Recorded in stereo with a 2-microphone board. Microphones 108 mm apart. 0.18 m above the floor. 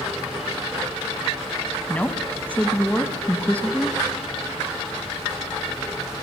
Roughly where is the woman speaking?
Centre.